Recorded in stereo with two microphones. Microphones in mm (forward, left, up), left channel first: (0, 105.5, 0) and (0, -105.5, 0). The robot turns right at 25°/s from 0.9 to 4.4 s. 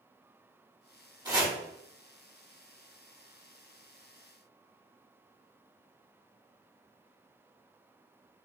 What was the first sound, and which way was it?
Chopping, 20° right (ahead or behind).